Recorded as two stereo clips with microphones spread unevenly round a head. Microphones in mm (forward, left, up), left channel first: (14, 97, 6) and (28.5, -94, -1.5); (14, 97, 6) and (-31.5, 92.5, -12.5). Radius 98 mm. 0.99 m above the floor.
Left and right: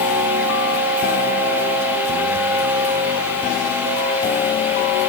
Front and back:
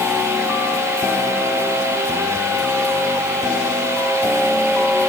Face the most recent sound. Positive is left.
No sound to turn to.